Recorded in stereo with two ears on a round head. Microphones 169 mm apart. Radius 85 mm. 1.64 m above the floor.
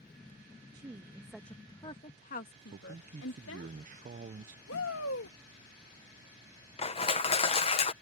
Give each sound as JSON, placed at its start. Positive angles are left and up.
{"t": 0.7, "sound": "a woman speaking", "side_deg": -20}
{"t": 2.7, "sound": "a man speaking", "side_deg": -40}
{"t": 4.7, "sound": "a shout", "side_deg": 75}
{"t": 6.8, "sound": "crushing", "side_deg": 30}